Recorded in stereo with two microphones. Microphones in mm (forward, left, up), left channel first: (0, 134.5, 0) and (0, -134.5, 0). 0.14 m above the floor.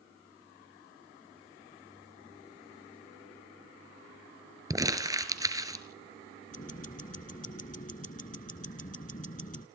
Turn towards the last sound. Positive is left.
turn(degrees=30)  # may be behind; listen again after turning